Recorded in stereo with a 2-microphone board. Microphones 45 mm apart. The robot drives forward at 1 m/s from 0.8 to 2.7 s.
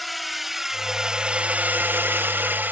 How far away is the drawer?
I don't hear a drawer.